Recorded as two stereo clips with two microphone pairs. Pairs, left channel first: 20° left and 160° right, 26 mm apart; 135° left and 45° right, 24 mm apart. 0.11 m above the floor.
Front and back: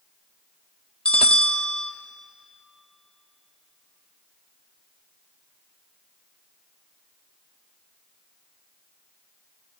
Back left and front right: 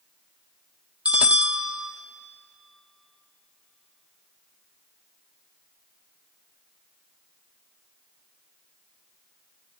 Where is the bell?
20° right, 0.8 m.